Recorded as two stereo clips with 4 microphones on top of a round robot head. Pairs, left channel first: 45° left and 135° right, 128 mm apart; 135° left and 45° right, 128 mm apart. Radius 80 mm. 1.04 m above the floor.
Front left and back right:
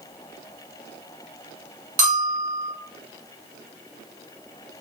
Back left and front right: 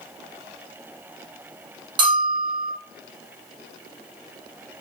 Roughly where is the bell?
Right.